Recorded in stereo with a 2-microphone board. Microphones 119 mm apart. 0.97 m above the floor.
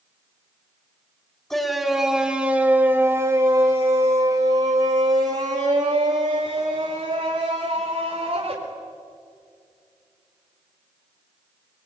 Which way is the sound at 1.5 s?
5° left (ahead or behind).